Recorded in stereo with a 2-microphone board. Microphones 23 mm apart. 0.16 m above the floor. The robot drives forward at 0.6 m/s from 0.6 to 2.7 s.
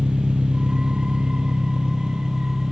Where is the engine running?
70° right (ahead or behind), 0.8 m; by 2.7 s 30° right (ahead or behind), 1.5 m.